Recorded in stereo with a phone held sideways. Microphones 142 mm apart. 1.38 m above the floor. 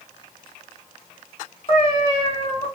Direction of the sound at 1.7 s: 40° left (ahead or behind).